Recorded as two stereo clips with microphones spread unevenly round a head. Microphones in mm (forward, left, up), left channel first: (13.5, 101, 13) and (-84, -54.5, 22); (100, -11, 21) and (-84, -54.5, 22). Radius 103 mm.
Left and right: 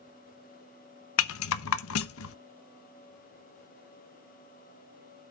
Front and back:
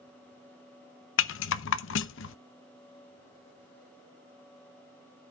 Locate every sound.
1.2 s a rattle: 45° left, 0.6 m